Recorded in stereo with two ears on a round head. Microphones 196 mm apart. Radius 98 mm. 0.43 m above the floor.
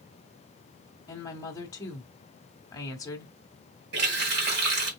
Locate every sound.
1.1 s a woman speaking: 15° left (ahead or behind), 1.1 m
3.9 s a running tap: 50° right (ahead or behind), 2 m